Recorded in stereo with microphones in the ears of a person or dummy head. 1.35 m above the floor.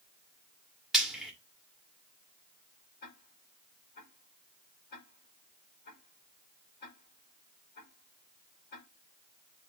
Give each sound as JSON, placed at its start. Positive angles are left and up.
{"t": 0.9, "sound": "frying", "side_deg": 5, "distance_m": 2.0}
{"t": 3.0, "sound": "ticking", "side_deg": 55, "distance_m": 4.5}